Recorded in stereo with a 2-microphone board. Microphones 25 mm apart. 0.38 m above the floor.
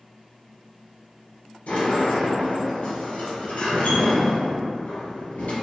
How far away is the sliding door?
About 1.5 m.